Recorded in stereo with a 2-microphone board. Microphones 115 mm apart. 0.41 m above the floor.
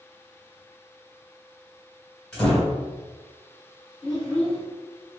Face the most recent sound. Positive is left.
turn(degrees=10)  # may be behind; listen again after turning